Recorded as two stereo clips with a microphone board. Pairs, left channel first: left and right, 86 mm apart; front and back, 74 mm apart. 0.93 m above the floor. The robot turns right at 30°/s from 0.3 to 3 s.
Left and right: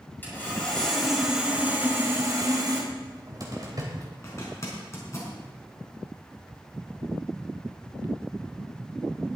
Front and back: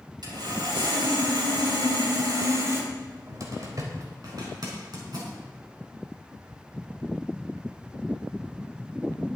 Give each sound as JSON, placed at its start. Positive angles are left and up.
{"t": 0.2, "sound": "sawing", "azimuth_deg": 160, "distance_m": 5.5}
{"t": 2.9, "sound": "a cupboard door", "azimuth_deg": -140, "distance_m": 3.5}
{"t": 4.2, "sound": "a zipper", "azimuth_deg": 150, "distance_m": 4.5}